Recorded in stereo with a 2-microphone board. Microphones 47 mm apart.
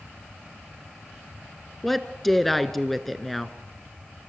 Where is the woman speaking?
Centre (ahead or behind), 1.1 m.